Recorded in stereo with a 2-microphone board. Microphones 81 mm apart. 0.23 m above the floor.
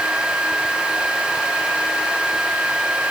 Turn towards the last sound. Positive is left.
No sound to turn to.